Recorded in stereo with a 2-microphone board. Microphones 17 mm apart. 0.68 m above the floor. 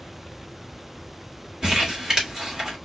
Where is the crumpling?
40° right (ahead or behind), 1.9 m.